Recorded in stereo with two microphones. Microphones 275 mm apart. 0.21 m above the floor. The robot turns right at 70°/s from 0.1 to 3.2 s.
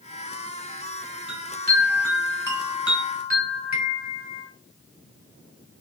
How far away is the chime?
About 2 m.